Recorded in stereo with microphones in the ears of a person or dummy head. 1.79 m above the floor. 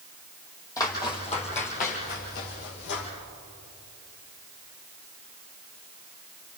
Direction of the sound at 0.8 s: 15° left (ahead or behind).